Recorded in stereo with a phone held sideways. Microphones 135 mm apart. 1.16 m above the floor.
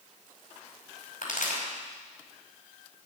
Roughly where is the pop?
Left.